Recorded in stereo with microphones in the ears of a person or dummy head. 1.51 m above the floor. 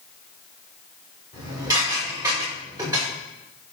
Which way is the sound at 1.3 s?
20° right (ahead or behind).